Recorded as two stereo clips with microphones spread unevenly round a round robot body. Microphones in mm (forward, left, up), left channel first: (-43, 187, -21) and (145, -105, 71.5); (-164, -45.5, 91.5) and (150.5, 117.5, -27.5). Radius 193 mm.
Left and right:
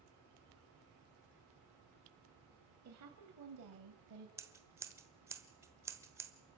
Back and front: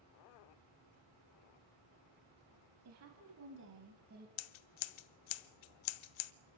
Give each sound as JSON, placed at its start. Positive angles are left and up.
{"t": 2.9, "sound": "a woman speaking", "azimuth_deg": -10, "distance_m": 3.0}
{"t": 4.4, "sound": "scissors", "azimuth_deg": -140, "distance_m": 0.9}